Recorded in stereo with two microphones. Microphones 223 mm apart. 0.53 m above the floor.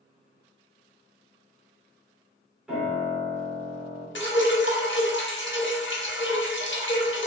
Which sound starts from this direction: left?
Dripping, at 4.2 s.